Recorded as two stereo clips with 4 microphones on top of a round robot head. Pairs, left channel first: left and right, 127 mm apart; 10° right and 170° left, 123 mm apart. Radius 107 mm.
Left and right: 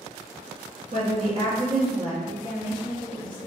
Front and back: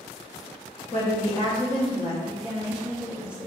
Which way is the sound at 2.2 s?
95° left.